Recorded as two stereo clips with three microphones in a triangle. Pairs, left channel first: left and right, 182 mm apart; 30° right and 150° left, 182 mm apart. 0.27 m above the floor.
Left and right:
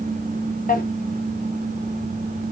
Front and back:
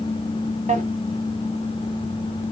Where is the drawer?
115° left, 1.0 m.